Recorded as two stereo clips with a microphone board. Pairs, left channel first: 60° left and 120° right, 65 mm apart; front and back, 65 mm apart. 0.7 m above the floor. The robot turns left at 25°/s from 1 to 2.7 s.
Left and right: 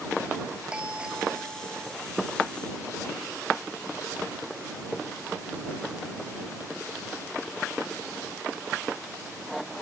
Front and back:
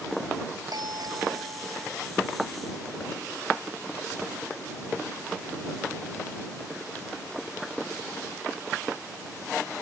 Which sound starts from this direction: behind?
A doorbell, at 0.7 s.